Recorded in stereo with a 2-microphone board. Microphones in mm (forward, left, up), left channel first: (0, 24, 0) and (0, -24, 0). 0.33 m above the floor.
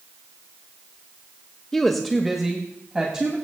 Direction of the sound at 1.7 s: 10° left (ahead or behind).